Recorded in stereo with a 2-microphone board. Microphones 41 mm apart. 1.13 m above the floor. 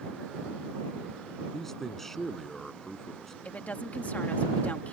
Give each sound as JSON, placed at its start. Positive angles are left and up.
{"t": 1.5, "sound": "a man speaking", "side_deg": 10}
{"t": 3.5, "sound": "a woman speaking", "side_deg": 40}